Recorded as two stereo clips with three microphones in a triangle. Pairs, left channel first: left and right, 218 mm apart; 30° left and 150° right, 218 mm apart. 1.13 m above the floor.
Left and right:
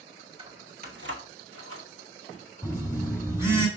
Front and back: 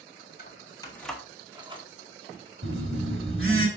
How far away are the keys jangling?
About 1.6 m.